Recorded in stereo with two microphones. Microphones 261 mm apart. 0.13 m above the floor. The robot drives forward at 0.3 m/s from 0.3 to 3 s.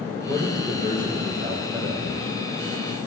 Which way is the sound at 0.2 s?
15° right (ahead or behind).